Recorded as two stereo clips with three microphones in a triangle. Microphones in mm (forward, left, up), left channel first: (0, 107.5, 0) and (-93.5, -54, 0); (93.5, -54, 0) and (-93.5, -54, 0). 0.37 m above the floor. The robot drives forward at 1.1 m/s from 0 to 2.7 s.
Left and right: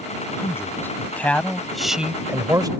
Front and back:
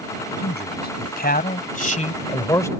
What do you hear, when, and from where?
0.4 s a man speaking: 15° right; by 2.7 s 70° right